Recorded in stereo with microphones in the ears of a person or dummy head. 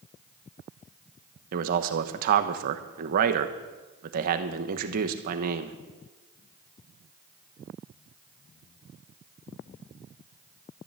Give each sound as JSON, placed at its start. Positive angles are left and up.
{"t": 1.5, "sound": "a man speaking", "side_deg": -55, "distance_m": 1.1}